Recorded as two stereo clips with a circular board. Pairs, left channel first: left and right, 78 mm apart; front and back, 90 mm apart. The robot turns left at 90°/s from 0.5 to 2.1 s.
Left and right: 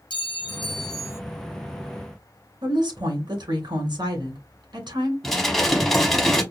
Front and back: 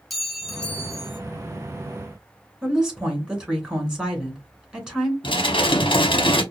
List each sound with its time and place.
0.1 s a clink: 90° left, 0.7 m; by 1.2 s 25° left, 0.7 m
2.6 s a woman speaking: 100° right, 2.5 m
5.2 s dishes clattering: 5° left, 0.9 m